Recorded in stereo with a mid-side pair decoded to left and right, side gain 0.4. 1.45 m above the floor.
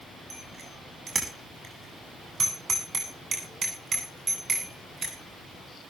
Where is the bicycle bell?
45° right, 8 m; by 5.2 s 50° right, 10.5 m.